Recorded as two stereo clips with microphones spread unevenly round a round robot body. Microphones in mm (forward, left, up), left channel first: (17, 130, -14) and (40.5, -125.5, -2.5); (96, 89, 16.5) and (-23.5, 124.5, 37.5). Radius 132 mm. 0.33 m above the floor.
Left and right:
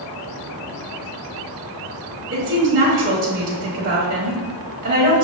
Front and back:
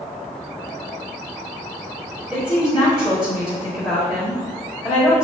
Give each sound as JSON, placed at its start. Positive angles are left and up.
{"t": 2.3, "sound": "a woman speaking", "azimuth_deg": -105, "distance_m": 1.0}